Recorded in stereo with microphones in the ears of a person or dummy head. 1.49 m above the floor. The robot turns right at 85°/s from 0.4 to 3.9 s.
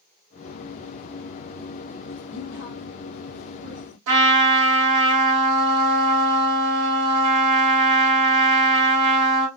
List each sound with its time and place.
2.3 s a woman speaking: 75° left (ahead or behind), 0.7 m; by 4.0 s 40° right (ahead or behind), 0.7 m
4.1 s a trumpet: 70° right (ahead or behind), 1.2 m